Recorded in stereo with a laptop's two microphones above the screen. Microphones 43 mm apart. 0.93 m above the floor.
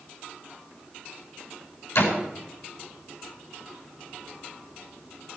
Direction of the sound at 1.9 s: 85° left.